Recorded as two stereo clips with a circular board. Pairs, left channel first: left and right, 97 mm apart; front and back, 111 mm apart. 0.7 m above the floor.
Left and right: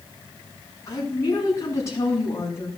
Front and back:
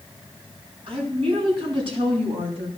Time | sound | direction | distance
0.9 | a woman speaking | 145° left | 5.5 m